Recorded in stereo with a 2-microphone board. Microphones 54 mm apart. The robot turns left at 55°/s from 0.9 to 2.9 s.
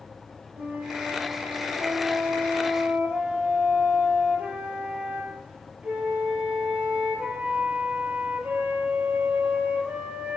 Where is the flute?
40° right, 0.8 m; by 10.4 s 150° right, 0.8 m.